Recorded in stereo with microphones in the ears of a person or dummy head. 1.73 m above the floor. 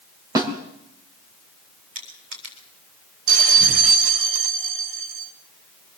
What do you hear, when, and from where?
0.3 s a snare drum: 15° right (ahead or behind), 3.5 m
1.9 s crushing: 40° right (ahead or behind), 7.5 m
3.3 s a bell: 60° right (ahead or behind), 1.5 m